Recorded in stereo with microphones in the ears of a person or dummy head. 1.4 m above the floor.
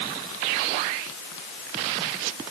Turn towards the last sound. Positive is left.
No sound to turn to.